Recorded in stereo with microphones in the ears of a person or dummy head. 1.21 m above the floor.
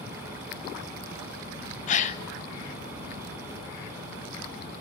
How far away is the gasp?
About 0.8 m.